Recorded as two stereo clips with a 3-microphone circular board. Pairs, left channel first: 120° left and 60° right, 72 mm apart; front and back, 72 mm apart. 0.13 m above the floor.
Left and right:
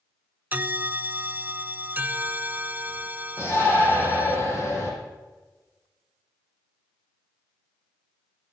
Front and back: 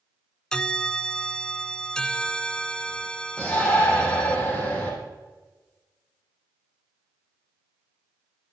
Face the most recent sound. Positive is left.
turn(degrees=65)